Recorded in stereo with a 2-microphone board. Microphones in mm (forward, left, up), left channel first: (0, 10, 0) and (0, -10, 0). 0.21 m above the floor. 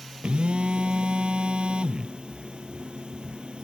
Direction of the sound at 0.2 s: 65° right (ahead or behind).